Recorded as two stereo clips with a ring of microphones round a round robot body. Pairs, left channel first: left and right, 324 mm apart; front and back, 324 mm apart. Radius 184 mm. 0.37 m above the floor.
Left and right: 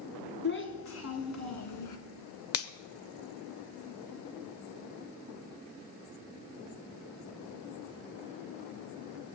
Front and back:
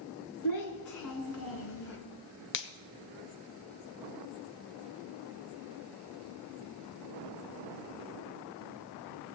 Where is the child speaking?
35° left, 2 m; by 2.0 s 60° left, 2.5 m.